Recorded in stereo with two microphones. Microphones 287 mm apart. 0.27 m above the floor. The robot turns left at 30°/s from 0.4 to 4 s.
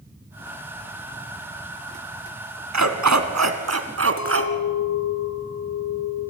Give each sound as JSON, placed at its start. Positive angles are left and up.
{"t": 2.7, "sound": "a dog barking", "azimuth_deg": -85, "distance_m": 1.3}
{"t": 4.2, "sound": "a clink", "side_deg": 70, "distance_m": 2.5}